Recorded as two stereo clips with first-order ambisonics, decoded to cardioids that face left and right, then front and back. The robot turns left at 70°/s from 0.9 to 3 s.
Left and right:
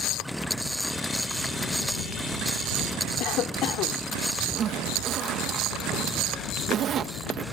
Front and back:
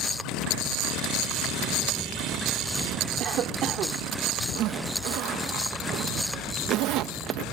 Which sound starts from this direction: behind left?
A cough, at 3.2 s.